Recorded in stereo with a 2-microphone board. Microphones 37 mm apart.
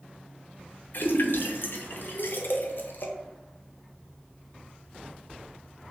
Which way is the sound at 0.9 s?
60° left (ahead or behind).